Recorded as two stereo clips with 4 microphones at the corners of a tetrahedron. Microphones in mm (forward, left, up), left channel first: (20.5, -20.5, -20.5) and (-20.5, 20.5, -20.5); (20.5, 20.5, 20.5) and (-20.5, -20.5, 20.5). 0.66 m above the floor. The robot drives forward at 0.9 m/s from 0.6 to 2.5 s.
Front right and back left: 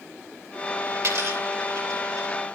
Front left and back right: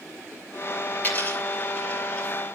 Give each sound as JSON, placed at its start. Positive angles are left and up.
{"t": 0.9, "sound": "a dropped coin", "azimuth_deg": 105, "distance_m": 5.5}